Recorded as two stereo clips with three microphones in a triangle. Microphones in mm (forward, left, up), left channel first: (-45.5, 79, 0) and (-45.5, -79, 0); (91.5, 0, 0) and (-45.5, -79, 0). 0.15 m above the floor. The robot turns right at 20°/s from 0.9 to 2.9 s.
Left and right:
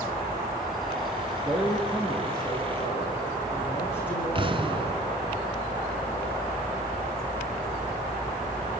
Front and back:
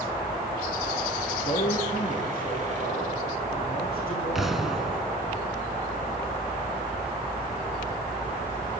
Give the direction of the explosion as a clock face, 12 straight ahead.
2 o'clock.